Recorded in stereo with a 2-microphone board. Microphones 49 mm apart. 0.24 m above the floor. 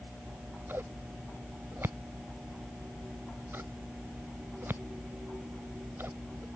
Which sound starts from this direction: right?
Scissors, at 0.3 s.